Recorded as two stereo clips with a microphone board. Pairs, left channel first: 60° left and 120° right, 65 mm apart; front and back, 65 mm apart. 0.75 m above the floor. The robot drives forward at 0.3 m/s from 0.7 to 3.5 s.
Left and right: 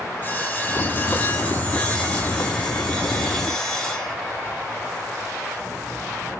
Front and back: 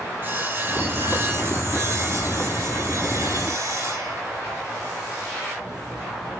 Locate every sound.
0.2 s sawing: 125° left, 1.8 m; by 4.2 s 140° left, 2.5 m